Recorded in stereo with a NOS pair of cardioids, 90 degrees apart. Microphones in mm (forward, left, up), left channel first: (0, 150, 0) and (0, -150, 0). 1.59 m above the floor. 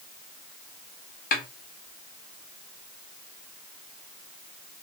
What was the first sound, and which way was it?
A snare drum, 30° left.